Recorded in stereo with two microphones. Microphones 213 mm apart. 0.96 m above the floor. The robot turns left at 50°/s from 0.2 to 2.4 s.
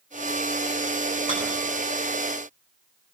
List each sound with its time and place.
1.3 s a rattle: 25° left (ahead or behind), 7.5 m; by 1.4 s 20° left (ahead or behind), 7.5 m